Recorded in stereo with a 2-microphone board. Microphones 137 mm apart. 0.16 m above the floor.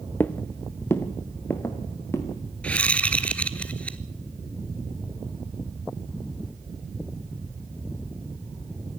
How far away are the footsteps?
About 1.0 m.